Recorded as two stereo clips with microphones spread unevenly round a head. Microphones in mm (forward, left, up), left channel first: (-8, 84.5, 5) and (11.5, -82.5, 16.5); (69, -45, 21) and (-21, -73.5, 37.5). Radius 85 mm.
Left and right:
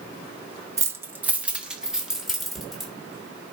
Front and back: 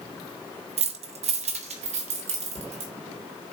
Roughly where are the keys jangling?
Behind.